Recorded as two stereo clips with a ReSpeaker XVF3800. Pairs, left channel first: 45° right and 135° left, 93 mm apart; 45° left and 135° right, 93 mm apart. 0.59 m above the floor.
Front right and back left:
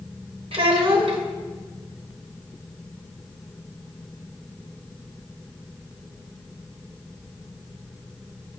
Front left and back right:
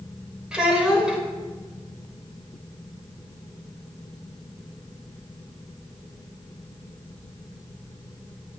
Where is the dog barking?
No dog barking in this recording.